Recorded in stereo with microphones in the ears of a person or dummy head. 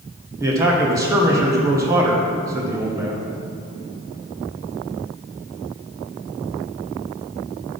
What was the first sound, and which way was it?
A man speaking, 15° right (ahead or behind).